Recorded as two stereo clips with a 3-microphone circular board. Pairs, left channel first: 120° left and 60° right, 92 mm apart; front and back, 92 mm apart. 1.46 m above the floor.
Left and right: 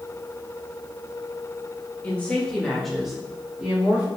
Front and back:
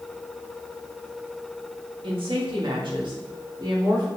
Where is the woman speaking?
165° right, 2.5 m; by 4.1 s 135° right, 3 m.